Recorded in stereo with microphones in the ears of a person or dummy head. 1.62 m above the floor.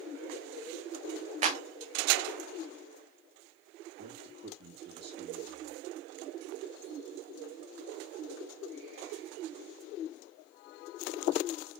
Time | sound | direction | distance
1.4 | a clap | 35° right (ahead or behind) | 0.6 m
4.0 | a man speaking | 30° right (ahead or behind) | 3 m